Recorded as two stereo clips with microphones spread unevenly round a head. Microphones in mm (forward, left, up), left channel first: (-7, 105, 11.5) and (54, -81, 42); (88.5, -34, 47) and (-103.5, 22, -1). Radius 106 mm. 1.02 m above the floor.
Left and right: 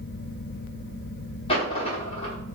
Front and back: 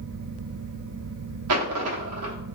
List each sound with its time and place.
1.5 s a dropped coin: 175° left, 0.9 m